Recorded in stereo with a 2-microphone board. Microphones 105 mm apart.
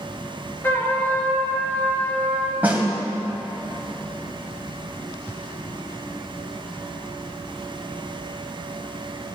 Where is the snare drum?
15° right (ahead or behind), 1.7 m.